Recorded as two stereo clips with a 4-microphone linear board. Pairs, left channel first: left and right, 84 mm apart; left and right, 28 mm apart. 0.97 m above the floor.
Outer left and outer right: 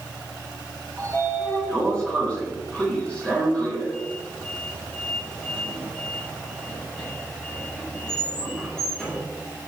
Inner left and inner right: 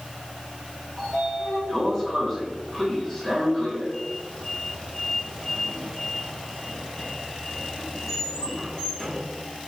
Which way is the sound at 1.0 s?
10° left (ahead or behind).